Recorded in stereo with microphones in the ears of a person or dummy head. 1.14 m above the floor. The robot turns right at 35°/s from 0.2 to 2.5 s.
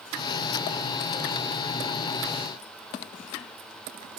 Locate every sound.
Only background noise.